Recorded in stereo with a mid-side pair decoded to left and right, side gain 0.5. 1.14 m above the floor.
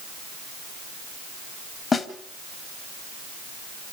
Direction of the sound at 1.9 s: 35° left.